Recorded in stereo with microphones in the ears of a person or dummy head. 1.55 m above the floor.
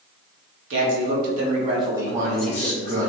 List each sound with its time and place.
0.7 s a man speaking: 65° right (ahead or behind), 1.2 m; by 3.1 s 25° left (ahead or behind), 1.2 m
2.1 s a man speaking: 35° right (ahead or behind), 0.6 m